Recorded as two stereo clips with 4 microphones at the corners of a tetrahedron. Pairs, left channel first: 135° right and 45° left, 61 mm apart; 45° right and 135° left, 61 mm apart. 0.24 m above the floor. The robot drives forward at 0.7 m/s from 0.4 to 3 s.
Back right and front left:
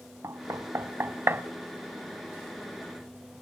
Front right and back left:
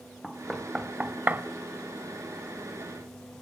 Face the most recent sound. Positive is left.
turn(degrees=145)